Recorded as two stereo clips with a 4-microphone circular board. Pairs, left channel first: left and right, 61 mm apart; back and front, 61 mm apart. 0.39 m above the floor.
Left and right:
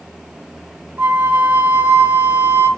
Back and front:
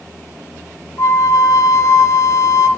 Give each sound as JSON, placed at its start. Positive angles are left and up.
{"t": 1.0, "sound": "a flute", "azimuth_deg": -145, "distance_m": 0.5}